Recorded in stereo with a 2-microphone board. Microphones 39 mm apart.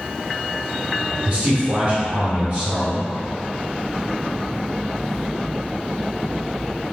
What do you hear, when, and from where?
1.2 s a man speaking: 20° right (ahead or behind), 1.1 m